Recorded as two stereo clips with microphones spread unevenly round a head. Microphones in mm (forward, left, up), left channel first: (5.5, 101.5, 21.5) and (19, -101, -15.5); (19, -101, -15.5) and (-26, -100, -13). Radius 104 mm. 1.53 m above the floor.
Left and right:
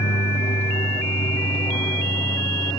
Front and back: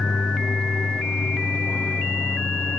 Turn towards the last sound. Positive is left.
turn(degrees=20)